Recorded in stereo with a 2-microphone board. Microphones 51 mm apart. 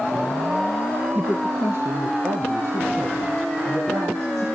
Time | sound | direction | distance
1.1 | a woman speaking | 30° right (ahead or behind) | 1.2 m